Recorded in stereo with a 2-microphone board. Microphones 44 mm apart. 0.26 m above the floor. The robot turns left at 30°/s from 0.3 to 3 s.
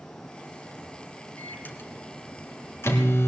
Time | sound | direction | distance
1.4 | a microwave | 140° left | 2.0 m